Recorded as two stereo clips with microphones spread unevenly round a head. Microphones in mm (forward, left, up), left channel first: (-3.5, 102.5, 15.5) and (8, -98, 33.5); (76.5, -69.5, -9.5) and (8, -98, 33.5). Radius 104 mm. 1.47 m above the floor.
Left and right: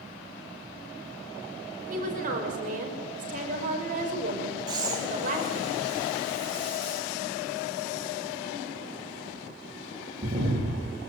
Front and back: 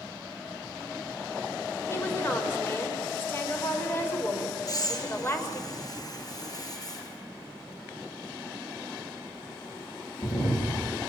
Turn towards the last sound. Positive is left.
turn(degrees=-15)